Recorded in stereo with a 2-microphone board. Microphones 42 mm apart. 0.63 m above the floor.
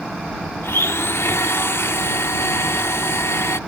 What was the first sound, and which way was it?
A blender, 75° left (ahead or behind).